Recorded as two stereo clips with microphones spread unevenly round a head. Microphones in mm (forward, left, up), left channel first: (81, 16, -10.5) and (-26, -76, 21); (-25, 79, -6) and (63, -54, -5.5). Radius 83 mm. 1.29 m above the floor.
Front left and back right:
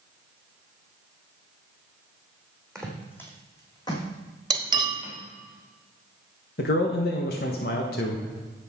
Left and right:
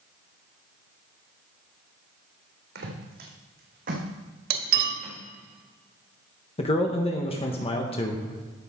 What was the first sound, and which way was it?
Footsteps, 50° right.